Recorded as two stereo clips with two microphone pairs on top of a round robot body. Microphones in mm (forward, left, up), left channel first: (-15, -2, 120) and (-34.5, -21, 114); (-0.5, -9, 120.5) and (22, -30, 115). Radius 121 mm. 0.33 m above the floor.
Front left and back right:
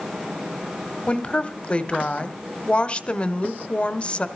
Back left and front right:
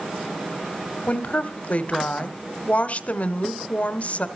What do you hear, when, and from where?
1.1 s a woman speaking: 95° left, 1.4 m